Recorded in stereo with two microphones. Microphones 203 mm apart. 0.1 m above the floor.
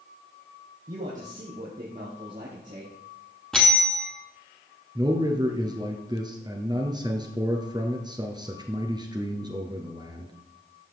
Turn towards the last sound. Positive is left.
turn(degrees=-20)  # may be behind; listen again after turning